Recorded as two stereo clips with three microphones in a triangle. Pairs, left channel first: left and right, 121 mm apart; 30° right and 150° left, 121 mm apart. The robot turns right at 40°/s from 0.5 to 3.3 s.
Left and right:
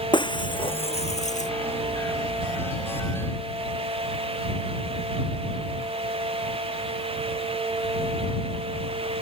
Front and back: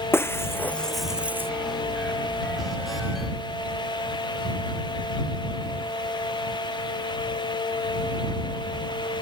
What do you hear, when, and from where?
0.1 s breaking glass: 40° left; by 1.5 s 80° left